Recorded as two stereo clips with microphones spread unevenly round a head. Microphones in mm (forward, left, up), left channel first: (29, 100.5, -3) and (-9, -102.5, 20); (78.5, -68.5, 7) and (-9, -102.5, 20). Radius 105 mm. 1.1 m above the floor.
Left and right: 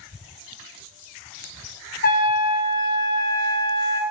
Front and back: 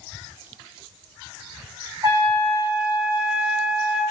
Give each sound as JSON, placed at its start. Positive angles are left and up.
{"t": 2.0, "sound": "a trumpet", "azimuth_deg": 130, "distance_m": 1.9}